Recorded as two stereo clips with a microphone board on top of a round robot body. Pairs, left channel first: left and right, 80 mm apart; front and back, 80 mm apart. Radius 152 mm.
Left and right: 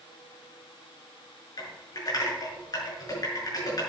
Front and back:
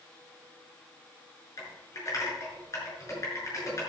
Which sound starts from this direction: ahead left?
Typing on a keyboard, at 1.6 s.